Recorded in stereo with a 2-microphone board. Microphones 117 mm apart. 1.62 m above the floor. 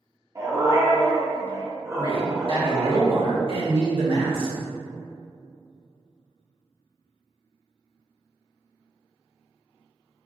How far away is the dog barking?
About 1.4 m.